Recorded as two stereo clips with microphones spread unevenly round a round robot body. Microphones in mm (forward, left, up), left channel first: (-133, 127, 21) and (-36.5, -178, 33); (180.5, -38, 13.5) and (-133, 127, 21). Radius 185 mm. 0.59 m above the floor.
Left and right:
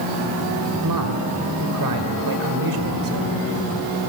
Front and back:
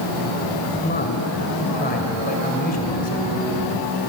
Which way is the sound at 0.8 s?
95° right.